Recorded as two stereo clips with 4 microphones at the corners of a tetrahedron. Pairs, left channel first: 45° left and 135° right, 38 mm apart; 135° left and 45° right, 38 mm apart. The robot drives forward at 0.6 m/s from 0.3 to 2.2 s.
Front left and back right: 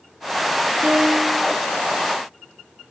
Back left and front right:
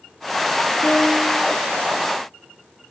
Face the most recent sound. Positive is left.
turn(degrees=175)